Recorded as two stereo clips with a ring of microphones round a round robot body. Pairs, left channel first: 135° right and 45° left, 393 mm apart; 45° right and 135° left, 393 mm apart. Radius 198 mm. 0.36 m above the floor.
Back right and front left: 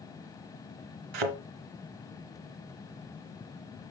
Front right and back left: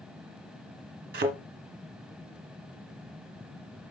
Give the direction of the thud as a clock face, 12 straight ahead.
10 o'clock.